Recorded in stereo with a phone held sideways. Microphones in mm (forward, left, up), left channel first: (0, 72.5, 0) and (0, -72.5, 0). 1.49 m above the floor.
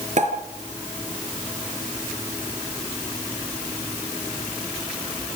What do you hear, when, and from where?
0.2 s a pop: 55° right (ahead or behind), 4 m